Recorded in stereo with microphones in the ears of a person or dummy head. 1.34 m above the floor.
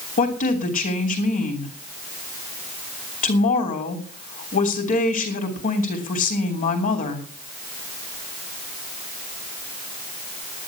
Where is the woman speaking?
45° left (ahead or behind), 3.5 m.